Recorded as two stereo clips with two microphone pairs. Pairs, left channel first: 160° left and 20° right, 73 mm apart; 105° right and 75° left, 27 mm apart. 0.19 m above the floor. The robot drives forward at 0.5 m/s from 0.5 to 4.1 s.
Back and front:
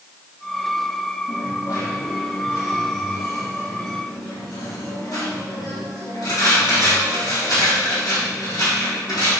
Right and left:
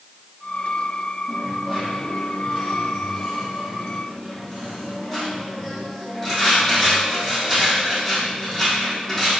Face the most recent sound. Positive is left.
turn(degrees=170)